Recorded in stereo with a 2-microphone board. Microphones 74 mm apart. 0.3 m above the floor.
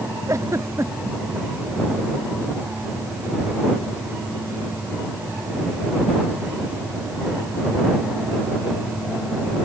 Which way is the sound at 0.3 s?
45° right (ahead or behind).